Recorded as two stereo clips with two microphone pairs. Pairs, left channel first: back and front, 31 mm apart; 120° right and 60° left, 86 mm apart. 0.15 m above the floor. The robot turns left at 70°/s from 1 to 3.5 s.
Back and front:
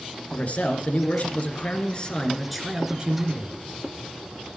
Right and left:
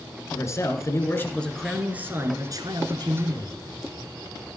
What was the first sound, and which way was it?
A man speaking, 165° right.